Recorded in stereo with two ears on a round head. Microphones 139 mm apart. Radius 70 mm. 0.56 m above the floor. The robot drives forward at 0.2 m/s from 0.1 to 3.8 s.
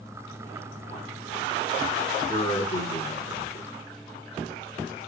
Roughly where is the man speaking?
Left.